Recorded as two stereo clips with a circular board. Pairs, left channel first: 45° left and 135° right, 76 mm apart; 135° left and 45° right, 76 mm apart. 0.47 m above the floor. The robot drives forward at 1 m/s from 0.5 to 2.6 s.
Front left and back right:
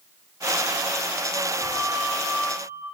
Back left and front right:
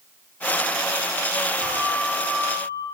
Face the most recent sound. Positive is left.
turn(degrees=-30)